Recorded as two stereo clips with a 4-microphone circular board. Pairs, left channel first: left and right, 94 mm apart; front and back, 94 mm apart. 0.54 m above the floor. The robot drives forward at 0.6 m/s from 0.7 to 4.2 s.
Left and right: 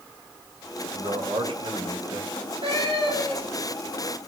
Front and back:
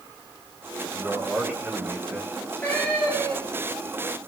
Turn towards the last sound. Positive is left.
turn(degrees=-85)